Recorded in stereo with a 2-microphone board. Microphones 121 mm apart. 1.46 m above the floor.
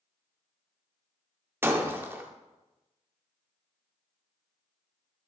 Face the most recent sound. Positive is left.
turn(degrees=-20)  # may be behind; listen again after turning